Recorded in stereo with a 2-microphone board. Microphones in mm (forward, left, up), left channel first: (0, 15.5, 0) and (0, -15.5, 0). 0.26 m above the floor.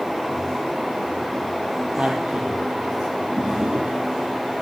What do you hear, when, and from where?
2.0 s a man speaking: 80° right, 8 m
3.4 s a drawer: 45° right (ahead or behind), 4 m